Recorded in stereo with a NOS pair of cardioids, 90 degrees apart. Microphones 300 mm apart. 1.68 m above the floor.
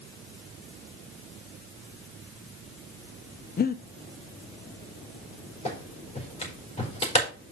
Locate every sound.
3.6 s breathing: 30° left, 0.6 m
5.7 s a clap: 20° left, 4.5 m